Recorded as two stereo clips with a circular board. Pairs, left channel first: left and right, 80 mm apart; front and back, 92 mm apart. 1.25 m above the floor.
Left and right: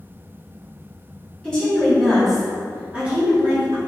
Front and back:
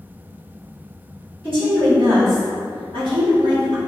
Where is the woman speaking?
165° left, 1.6 m; by 3.8 s 145° right, 1.1 m.